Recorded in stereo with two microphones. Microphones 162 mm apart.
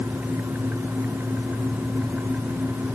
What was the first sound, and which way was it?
Only background noise.